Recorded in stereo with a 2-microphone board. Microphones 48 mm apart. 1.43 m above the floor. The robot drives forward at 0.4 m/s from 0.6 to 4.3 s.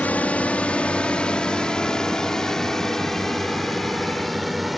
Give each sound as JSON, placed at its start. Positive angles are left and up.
{"t": 0.0, "sound": "a drone", "side_deg": 30}